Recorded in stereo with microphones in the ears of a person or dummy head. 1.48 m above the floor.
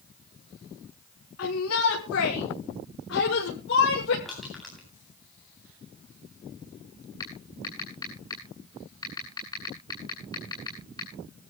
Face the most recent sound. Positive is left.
turn(degrees=25)  # may be behind; listen again after turning